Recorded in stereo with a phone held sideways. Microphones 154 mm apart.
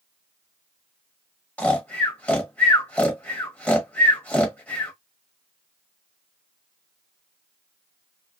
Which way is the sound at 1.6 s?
10° left (ahead or behind).